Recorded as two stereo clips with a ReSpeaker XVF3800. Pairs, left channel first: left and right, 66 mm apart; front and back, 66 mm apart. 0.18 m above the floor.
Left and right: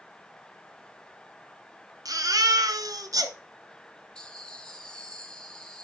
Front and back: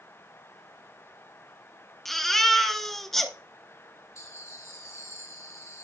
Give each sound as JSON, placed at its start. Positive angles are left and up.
{"t": 2.0, "sound": "a baby crying", "azimuth_deg": -85, "distance_m": 1.1}
{"t": 4.2, "sound": "laughter", "azimuth_deg": 15, "distance_m": 2.0}